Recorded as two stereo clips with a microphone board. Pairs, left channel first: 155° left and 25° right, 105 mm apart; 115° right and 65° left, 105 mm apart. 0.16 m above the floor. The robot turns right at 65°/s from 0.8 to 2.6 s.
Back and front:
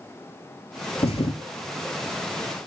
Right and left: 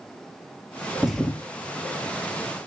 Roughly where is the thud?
Behind left.